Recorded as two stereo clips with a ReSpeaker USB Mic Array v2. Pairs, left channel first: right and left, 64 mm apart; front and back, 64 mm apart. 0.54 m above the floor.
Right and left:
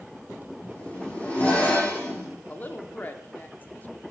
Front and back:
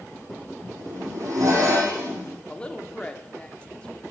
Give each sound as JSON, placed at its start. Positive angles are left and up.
{"t": 0.6, "sound": "a zipper", "azimuth_deg": -155, "distance_m": 5.5}
{"t": 2.5, "sound": "a woman speaking", "azimuth_deg": -60, "distance_m": 1.0}